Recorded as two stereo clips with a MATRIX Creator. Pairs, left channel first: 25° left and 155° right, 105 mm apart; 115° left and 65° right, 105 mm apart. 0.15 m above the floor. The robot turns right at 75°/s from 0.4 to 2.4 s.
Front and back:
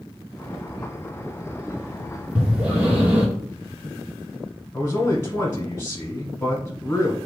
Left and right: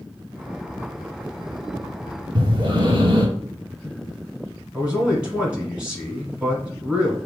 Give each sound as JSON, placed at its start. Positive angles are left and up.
{"t": 2.4, "sound": "breathing", "azimuth_deg": -85, "distance_m": 1.6}
{"t": 4.7, "sound": "a man speaking", "azimuth_deg": 0, "distance_m": 1.1}